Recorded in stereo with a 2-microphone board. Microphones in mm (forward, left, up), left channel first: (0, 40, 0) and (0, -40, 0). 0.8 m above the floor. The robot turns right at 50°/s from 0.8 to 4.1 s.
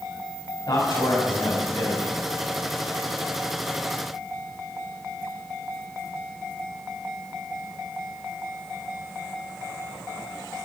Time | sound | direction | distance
0.7 | a man speaking | 60° left | 6.5 m